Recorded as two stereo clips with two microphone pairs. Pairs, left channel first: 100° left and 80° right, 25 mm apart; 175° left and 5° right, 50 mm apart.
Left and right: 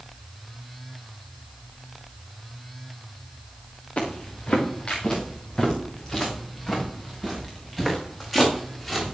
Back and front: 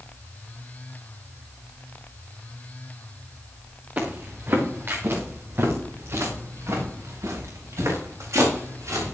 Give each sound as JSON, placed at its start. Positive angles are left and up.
{"t": 4.0, "sound": "footsteps", "azimuth_deg": 50, "distance_m": 5.0}